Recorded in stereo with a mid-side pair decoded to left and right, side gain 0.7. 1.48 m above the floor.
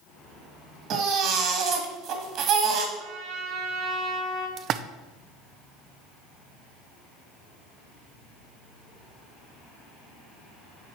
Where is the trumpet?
60° right, 2.5 m.